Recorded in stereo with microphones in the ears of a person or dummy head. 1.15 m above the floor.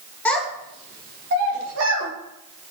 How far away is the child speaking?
About 0.6 m.